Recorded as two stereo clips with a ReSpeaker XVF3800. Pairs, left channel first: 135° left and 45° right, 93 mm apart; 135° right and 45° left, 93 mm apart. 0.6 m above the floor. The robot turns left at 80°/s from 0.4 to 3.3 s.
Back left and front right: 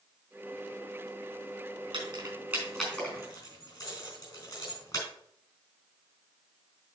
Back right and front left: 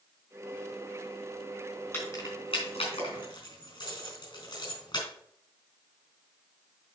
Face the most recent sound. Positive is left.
turn(degrees=-170)